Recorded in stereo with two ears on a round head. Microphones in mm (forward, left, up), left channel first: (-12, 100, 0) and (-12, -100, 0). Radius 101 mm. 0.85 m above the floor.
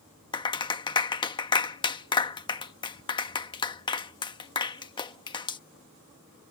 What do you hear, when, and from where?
0.3 s a clap: 20° left (ahead or behind)